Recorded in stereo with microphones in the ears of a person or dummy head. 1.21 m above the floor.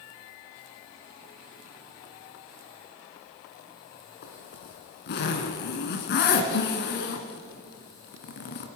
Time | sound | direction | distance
4.2 | a zipper | 60° left (ahead or behind) | 2 m